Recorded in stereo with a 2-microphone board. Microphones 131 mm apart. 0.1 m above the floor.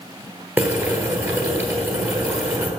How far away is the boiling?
About 1.2 m.